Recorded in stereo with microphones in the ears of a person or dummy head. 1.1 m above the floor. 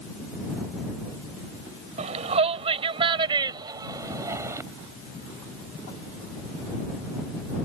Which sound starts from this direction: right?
A shout, at 2.0 s.